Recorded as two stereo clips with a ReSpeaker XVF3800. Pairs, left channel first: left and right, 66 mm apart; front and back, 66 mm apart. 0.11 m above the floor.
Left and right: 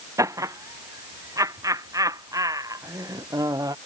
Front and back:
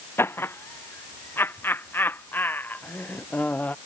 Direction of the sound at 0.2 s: 50° right.